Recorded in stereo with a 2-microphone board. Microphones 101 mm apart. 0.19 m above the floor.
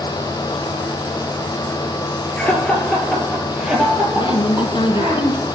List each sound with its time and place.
2.4 s laughter: 15° left (ahead or behind), 3 m; by 5.2 s 20° right (ahead or behind), 5.5 m
4.2 s a woman speaking: 60° left (ahead or behind), 1.7 m